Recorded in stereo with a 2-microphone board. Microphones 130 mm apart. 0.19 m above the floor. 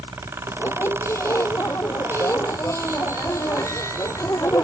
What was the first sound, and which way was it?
A squeak, 20° left (ahead or behind).